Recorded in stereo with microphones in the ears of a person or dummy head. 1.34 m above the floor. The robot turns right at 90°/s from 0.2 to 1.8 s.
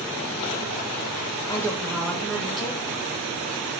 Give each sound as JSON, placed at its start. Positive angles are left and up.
{"t": 1.5, "sound": "a woman speaking", "side_deg": 15, "distance_m": 0.9}